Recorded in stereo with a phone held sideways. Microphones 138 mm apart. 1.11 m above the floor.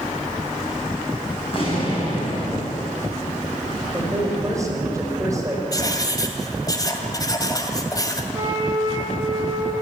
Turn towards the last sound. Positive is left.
turn(degrees=-30)  # may be behind; listen again after turning